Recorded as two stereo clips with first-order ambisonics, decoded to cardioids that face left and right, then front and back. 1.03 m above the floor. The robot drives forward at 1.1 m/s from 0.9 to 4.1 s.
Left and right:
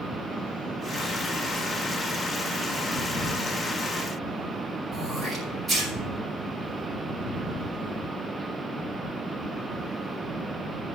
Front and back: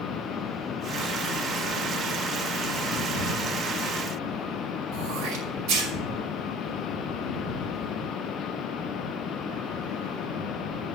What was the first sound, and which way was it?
Throat clearing, 175° right.